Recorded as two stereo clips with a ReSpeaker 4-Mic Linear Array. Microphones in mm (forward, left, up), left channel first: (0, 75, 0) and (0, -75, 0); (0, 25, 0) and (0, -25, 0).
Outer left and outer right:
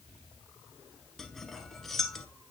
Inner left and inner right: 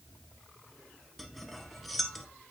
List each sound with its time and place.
1.2 s cutlery clinking: centre (ahead or behind), 0.8 m